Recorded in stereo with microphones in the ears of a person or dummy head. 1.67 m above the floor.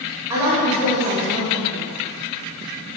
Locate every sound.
0.3 s a woman speaking: 20° right (ahead or behind), 0.9 m